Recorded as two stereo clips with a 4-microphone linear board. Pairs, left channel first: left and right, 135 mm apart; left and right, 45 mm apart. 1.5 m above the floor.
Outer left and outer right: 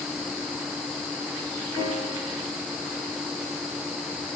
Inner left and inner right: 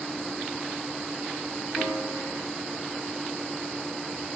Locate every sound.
1.8 s a piano: 65° left (ahead or behind), 3 m